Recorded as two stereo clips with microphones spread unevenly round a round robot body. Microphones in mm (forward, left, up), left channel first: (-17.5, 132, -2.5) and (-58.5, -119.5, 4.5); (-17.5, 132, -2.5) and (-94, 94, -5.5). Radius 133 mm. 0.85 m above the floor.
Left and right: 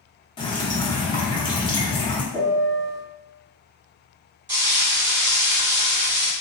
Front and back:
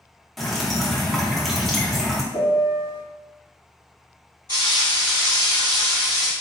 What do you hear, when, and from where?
0.4 s dripping: 120° left, 0.7 m
2.3 s a piano: 5° left, 1.5 m
4.5 s frying: 40° right, 2.0 m